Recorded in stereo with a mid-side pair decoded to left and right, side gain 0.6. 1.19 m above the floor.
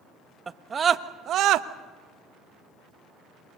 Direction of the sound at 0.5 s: 20° right.